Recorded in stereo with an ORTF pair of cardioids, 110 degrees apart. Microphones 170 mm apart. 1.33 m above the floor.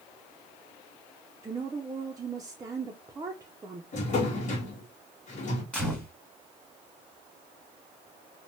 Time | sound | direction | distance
1.4 | a woman speaking | 20° right | 0.5 m
3.9 | a drawer | 45° left | 1.3 m
5.7 | a gunshot | 5° left | 1.5 m